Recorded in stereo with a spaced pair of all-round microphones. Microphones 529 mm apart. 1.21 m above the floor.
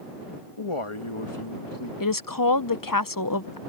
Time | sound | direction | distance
0.6 | a man speaking | 75° left (ahead or behind) | ?
2.0 | a woman speaking | 40° left (ahead or behind) | ?